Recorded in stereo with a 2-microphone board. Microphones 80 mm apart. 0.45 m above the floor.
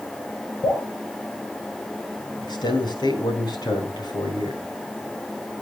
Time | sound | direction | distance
0.6 | dripping | 65° left (ahead or behind) | 9 m
2.4 | a man speaking | 65° left (ahead or behind) | 4.5 m